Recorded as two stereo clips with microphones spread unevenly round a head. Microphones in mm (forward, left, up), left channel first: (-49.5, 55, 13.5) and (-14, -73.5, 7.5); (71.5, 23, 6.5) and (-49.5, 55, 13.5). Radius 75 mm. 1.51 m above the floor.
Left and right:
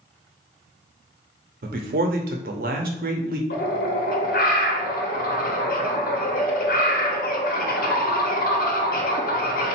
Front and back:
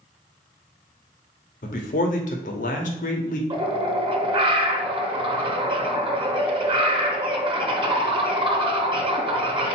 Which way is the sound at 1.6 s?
50° right.